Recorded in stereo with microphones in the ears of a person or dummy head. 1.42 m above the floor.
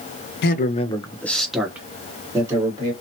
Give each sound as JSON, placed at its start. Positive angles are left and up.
{"t": 0.4, "sound": "a man speaking", "side_deg": 60, "distance_m": 0.6}